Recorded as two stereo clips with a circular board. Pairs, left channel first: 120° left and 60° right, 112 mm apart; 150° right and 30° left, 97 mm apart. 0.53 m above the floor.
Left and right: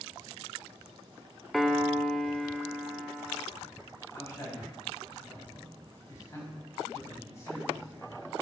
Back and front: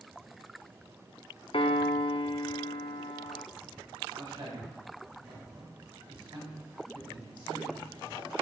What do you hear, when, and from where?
1.5 s a piano: 150° right, 0.5 m
4.1 s a man speaking: 55° left, 4 m